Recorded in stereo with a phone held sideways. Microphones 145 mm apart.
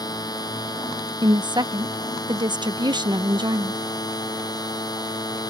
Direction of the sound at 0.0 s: 25° left (ahead or behind).